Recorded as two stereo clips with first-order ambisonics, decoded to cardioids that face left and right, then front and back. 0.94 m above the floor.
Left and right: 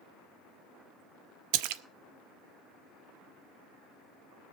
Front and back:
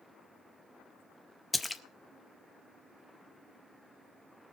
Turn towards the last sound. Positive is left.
turn(degrees=-80)